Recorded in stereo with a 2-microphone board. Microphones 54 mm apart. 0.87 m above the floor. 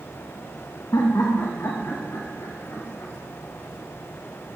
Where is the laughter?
65° left (ahead or behind), 0.8 m; by 3.1 s 50° left (ahead or behind), 2 m.